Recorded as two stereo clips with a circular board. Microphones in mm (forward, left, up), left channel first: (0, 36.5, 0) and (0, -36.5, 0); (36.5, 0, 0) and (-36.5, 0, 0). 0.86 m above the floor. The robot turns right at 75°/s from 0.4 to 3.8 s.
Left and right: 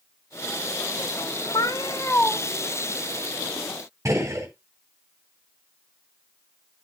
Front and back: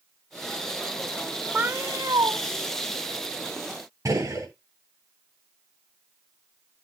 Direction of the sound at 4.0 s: 135° right.